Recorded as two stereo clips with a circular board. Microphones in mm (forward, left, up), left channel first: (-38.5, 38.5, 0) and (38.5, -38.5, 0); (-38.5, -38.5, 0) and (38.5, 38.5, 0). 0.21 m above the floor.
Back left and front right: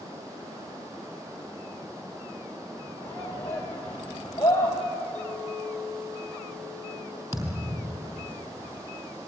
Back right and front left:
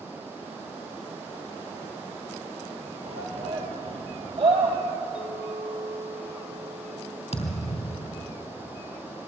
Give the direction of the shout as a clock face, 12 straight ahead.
10 o'clock.